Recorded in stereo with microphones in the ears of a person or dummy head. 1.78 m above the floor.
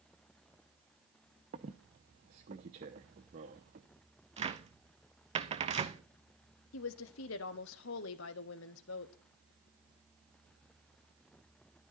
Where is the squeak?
25° right (ahead or behind), 0.8 m.